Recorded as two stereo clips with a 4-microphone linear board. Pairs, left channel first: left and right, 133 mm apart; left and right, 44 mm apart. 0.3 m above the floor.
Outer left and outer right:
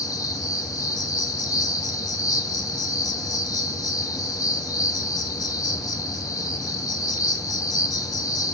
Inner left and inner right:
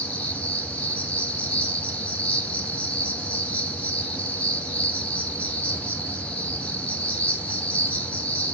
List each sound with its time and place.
0.0 s an insect: 30° left (ahead or behind), 1.1 m